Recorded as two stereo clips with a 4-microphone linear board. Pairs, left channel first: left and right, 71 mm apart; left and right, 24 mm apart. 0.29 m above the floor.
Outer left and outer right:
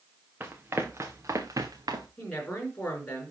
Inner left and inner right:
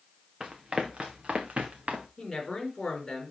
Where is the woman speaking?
20° left (ahead or behind), 4 m.